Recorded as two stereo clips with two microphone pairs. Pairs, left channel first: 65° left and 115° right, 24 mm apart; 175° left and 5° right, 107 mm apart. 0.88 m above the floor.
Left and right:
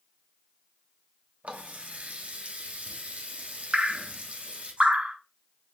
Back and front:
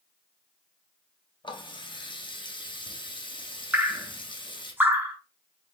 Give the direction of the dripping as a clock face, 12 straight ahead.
3 o'clock.